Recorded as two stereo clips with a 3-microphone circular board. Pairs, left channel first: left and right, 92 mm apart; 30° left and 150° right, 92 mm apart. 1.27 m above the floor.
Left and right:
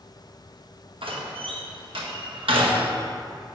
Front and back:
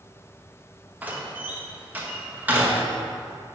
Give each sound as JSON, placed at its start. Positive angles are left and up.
{"t": 1.0, "sound": "a door slam", "azimuth_deg": -75, "distance_m": 1.2}